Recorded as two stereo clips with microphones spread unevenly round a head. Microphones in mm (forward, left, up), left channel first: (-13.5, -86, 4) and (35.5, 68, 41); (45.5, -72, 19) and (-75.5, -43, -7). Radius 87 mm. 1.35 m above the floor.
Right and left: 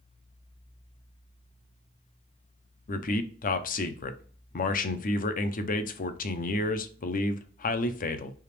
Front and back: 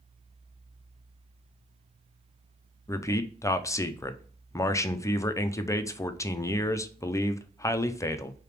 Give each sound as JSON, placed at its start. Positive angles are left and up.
{"t": 2.9, "sound": "a man speaking", "azimuth_deg": -85, "distance_m": 0.6}